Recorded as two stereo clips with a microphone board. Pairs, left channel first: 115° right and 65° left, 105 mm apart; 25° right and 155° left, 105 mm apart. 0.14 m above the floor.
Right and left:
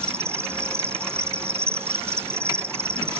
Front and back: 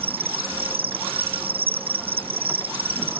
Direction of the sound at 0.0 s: 135° left.